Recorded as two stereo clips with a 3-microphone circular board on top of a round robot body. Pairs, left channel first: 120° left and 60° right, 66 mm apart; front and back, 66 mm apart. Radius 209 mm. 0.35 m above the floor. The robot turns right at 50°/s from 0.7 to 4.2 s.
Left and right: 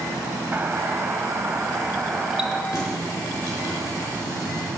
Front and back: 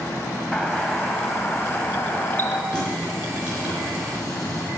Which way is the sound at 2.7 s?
70° left.